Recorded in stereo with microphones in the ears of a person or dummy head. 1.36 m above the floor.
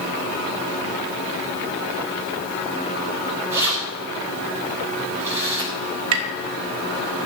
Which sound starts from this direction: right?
Tapping, at 6.1 s.